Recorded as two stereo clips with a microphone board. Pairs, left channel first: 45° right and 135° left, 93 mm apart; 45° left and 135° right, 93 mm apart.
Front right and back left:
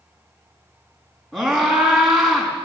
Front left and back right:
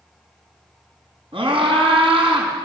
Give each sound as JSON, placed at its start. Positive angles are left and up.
{"t": 1.3, "sound": "a scream", "azimuth_deg": -135, "distance_m": 5.5}